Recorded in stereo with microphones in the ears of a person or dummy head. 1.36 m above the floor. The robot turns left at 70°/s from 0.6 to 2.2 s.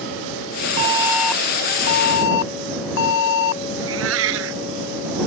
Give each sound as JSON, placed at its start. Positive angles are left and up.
{"t": 0.8, "sound": "an alarm", "azimuth_deg": -150}
{"t": 3.8, "sound": "a cat meowing", "side_deg": -70}